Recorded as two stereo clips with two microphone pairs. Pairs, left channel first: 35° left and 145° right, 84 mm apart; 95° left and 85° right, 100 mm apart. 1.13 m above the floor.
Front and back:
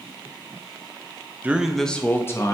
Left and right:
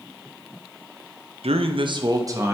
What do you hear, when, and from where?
1.4 s a man speaking: 80° right, 0.7 m; by 2.5 s 20° right, 1.0 m